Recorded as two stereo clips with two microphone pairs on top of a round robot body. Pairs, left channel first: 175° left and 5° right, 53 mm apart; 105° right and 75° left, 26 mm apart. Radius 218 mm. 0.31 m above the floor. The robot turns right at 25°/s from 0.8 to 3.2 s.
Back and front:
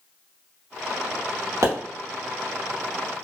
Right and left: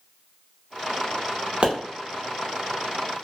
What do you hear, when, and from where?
1.6 s a pop: 30° left, 0.7 m